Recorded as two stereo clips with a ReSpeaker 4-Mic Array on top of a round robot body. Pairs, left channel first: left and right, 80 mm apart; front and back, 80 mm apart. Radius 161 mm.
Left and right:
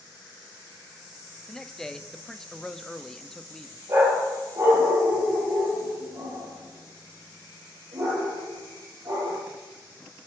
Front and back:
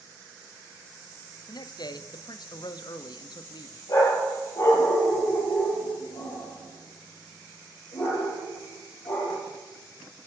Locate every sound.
1.5 s a man speaking: 10° left, 1.1 m
3.9 s a dog barking: 35° right, 6.5 m